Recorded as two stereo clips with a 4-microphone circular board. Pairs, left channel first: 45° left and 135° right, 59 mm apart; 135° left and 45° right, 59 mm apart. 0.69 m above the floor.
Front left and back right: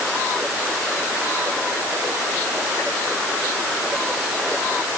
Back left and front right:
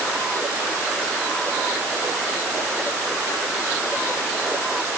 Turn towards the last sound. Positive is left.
No sound to turn to.